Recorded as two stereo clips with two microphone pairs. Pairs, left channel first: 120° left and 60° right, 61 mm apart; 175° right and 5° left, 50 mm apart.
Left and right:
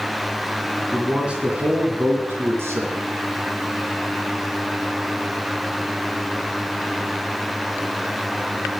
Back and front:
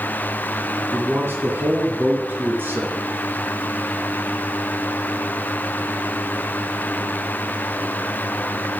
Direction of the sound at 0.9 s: 15° left.